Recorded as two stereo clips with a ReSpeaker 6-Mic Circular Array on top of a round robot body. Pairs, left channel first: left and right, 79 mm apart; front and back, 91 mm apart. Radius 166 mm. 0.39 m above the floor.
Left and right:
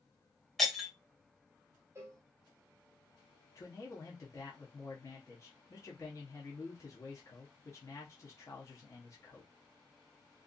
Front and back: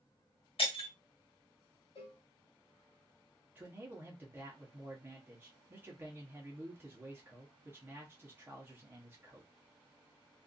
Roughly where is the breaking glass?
Ahead.